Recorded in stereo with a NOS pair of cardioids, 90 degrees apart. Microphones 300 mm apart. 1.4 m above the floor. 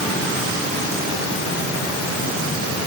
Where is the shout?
No shout in this recording.